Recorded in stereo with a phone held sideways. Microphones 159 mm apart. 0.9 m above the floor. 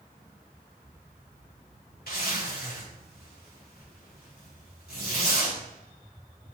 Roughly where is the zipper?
Left.